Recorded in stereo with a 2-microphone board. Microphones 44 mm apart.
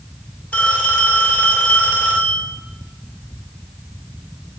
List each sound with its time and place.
0.5 s a phone ringing: 35° left (ahead or behind), 2 m